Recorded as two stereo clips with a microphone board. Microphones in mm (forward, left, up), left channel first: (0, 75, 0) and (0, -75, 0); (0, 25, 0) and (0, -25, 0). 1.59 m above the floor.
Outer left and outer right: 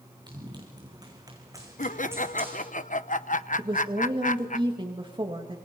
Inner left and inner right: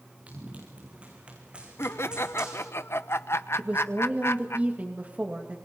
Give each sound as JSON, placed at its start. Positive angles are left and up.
{"t": 0.3, "sound": "running footsteps", "side_deg": -30, "distance_m": 5.5}
{"t": 1.8, "sound": "laughter", "side_deg": 60, "distance_m": 0.9}
{"t": 3.6, "sound": "a woman speaking", "side_deg": -35, "distance_m": 2.5}